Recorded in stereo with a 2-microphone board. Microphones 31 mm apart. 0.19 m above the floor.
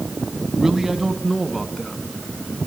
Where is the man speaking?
20° right (ahead or behind), 1.4 m; by 2.0 s centre (ahead or behind), 1.9 m.